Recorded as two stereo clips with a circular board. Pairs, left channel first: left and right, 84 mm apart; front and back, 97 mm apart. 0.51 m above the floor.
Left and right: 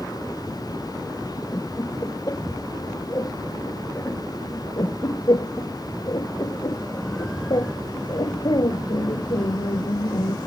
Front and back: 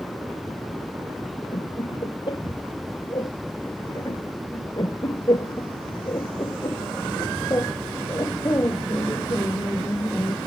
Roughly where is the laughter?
Ahead left.